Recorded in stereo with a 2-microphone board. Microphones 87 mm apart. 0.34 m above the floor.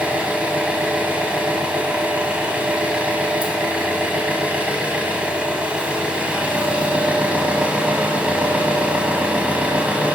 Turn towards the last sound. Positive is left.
turn(degrees=-15)  # may be behind; listen again after turning